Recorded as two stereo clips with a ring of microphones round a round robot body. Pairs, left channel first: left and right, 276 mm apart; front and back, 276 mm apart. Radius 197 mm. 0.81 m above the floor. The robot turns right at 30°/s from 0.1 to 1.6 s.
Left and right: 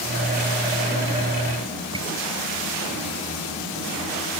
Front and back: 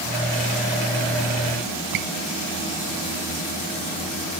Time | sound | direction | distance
1.9 | a squeak | 170° right | ?